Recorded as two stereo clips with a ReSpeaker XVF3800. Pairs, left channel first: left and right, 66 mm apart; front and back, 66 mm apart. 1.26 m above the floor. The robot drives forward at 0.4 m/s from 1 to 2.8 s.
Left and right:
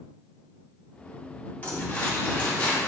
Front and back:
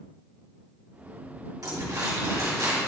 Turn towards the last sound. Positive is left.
turn(degrees=160)